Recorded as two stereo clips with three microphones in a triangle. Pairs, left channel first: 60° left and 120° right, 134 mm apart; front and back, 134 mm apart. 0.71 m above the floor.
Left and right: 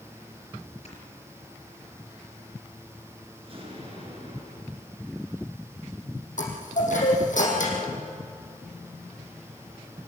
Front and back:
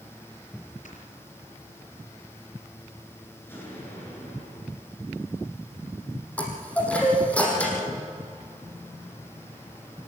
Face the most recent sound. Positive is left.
turn(degrees=80)